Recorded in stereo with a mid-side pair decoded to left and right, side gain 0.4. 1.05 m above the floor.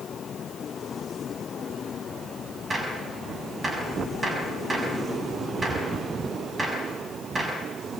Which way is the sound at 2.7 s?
35° right.